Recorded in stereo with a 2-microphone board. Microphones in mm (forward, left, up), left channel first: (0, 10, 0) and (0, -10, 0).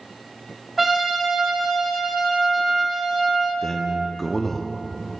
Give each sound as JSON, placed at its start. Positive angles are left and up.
{"t": 0.8, "sound": "a trumpet", "side_deg": -5, "distance_m": 1.5}
{"t": 3.6, "sound": "a man speaking", "side_deg": 15, "distance_m": 0.6}